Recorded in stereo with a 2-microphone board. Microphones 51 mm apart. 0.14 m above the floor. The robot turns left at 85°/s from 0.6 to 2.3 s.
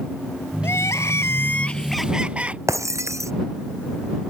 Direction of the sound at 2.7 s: 80° right.